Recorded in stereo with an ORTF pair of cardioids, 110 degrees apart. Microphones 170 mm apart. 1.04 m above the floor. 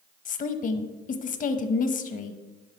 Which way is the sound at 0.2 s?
50° left.